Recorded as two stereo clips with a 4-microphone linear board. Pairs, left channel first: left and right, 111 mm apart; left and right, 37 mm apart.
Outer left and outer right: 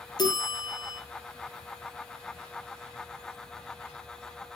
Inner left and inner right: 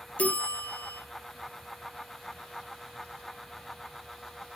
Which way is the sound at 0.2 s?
40° left (ahead or behind).